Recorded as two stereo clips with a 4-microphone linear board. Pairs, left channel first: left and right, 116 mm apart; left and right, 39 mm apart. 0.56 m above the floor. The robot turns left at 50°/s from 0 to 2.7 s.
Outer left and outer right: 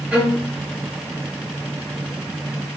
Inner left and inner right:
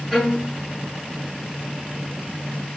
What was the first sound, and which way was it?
A violin, 15° right (ahead or behind).